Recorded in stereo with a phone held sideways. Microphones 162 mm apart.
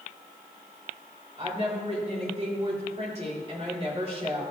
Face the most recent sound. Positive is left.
turn(degrees=-40)  # may be behind; listen again after turning